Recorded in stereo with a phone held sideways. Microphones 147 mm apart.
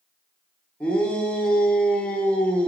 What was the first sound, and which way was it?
A shout, 10° left (ahead or behind).